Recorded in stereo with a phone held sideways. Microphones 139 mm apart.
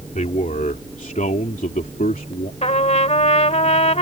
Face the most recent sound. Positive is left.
turn(degrees=55)  # may be behind; listen again after turning